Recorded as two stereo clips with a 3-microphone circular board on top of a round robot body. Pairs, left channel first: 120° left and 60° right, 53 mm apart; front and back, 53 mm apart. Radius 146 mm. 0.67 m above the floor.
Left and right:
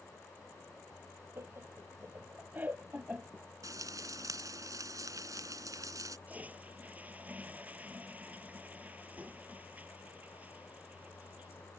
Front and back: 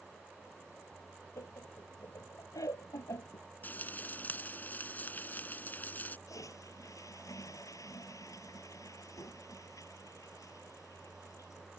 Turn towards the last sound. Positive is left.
turn(degrees=0)